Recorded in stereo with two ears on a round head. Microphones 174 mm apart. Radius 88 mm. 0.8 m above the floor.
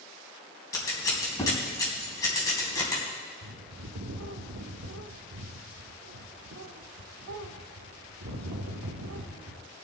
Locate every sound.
0.7 s scissors: 20° left (ahead or behind), 3 m
3.4 s a bird: 80° right, 1.1 m